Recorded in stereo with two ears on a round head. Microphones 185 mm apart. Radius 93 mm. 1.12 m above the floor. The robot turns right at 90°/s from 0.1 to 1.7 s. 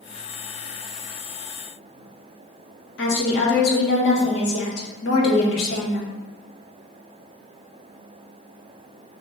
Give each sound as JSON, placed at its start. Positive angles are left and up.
{"t": 3.0, "sound": "a woman speaking", "side_deg": 55, "distance_m": 1.0}